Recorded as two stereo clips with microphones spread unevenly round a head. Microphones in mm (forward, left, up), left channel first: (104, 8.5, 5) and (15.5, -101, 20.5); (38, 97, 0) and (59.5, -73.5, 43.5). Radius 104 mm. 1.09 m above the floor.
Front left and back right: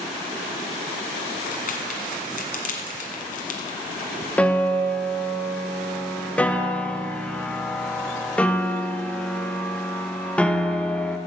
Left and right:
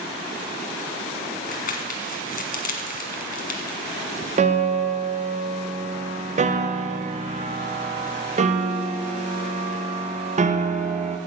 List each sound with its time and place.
1.5 s crumpling: 55° left, 1.5 m
4.4 s a piano: 30° right, 0.9 m